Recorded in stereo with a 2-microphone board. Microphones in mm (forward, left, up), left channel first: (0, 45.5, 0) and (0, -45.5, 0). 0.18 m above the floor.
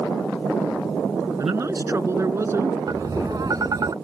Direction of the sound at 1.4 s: 35° right (ahead or behind).